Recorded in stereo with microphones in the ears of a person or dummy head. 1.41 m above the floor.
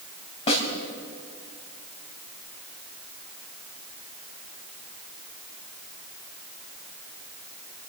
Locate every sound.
0.5 s a snare drum: 35° left (ahead or behind), 4 m